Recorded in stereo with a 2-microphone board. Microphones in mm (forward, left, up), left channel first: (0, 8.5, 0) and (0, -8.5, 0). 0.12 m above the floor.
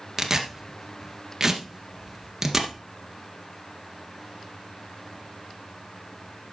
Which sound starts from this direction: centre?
Tearing paper, at 0.2 s.